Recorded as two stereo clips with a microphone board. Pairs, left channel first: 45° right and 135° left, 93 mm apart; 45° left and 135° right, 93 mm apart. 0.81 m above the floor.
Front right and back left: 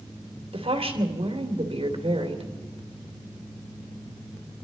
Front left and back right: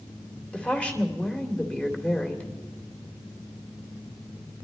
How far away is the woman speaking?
About 2.5 m.